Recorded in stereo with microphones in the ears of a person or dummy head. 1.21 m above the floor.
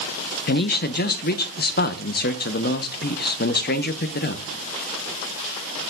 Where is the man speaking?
50° left (ahead or behind), 0.9 m.